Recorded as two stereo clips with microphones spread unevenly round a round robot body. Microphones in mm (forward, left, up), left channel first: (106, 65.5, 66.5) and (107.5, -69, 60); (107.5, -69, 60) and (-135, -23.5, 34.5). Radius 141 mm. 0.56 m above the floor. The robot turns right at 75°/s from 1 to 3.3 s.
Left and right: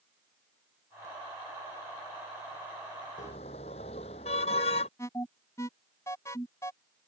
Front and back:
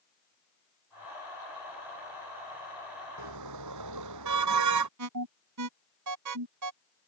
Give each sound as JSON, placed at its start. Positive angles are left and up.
{"t": 3.2, "sound": "a car horn", "azimuth_deg": 145}
{"t": 5.0, "sound": "an alarm", "azimuth_deg": 170}